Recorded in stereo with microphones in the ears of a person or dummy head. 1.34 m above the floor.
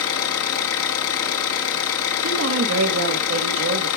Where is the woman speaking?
70° right (ahead or behind), 1.3 m.